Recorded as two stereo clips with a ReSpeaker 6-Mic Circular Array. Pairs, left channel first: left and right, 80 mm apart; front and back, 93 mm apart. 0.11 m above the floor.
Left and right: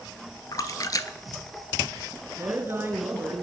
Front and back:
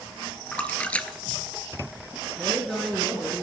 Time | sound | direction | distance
0.5 | a splash | 70° left | 0.6 m
2.4 | a woman speaking | 85° right | 1.6 m